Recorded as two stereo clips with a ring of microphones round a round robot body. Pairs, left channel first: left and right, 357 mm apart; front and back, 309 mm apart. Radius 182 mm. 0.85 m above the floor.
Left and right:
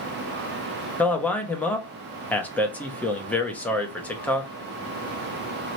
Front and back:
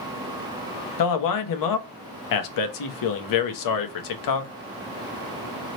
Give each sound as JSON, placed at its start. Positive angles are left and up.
{"t": 1.0, "sound": "a man speaking", "azimuth_deg": 5, "distance_m": 0.8}